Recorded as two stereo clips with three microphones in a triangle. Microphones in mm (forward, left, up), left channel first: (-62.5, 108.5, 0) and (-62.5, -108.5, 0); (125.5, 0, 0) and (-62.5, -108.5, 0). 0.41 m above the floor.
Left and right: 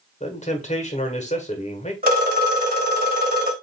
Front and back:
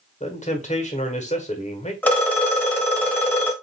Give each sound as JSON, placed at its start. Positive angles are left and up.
{"t": 0.2, "sound": "a man speaking", "azimuth_deg": 60, "distance_m": 1.3}
{"t": 2.0, "sound": "a phone ringing", "azimuth_deg": -55, "distance_m": 1.3}